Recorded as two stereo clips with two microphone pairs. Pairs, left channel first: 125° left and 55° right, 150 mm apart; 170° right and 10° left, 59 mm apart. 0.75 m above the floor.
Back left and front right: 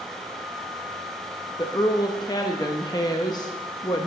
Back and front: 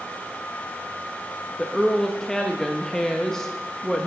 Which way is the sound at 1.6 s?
115° left.